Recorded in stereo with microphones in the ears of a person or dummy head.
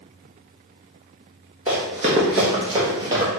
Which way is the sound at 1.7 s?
15° right (ahead or behind).